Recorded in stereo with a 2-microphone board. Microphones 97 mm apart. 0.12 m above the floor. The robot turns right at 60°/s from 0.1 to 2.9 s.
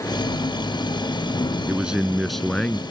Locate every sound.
1.7 s a man speaking: 15° right (ahead or behind); by 2.8 s 10° left (ahead or behind)